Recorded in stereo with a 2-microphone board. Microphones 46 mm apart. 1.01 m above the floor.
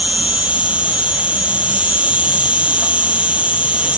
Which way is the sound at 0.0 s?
30° right (ahead or behind).